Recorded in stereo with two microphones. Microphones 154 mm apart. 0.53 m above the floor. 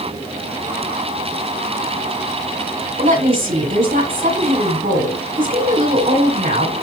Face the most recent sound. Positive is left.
turn(degrees=-70)  # may be behind; listen again after turning